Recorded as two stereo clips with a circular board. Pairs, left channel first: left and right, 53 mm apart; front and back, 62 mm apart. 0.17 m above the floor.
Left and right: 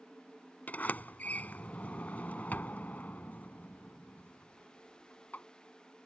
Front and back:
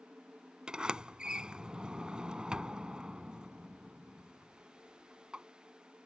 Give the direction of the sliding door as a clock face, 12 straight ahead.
8 o'clock.